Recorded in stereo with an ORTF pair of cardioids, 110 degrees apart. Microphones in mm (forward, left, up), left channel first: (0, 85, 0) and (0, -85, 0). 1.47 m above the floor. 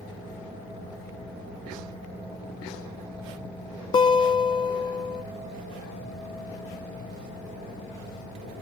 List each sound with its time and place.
3.9 s a guitar: 30° left, 1.0 m